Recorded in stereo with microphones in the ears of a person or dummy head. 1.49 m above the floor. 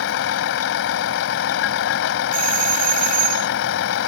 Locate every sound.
0.0 s a vehicle: 70° left (ahead or behind)
2.3 s a doorbell: 45° right (ahead or behind)